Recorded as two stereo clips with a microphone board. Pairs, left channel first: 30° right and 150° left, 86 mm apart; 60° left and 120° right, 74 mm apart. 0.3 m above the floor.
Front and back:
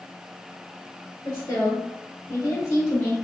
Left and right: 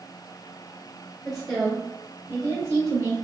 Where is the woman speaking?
15° right, 1.1 m; by 3.1 s 90° right, 1.7 m.